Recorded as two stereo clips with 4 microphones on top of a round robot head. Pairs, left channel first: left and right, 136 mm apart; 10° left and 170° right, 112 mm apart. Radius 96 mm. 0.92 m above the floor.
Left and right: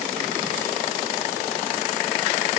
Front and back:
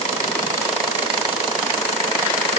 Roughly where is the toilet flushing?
No toilet flushing in this recording.